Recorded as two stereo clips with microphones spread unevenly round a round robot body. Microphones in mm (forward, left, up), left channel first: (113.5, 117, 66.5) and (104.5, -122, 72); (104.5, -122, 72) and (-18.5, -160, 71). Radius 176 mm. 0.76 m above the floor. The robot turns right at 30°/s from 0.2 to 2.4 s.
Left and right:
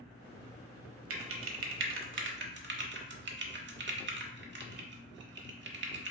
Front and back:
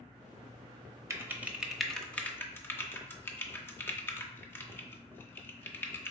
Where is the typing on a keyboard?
95° right, 0.9 m; by 6.1 s 55° right, 0.9 m.